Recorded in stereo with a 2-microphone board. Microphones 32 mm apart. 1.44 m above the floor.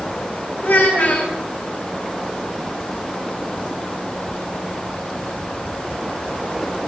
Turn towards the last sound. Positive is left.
turn(degrees=80)